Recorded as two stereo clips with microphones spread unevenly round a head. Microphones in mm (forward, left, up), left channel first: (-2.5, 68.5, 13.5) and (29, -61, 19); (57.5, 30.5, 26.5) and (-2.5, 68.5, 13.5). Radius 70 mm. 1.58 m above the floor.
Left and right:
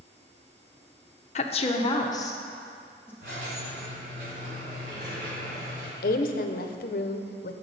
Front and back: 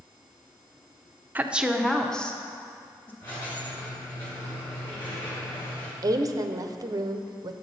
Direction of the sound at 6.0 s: 110° left.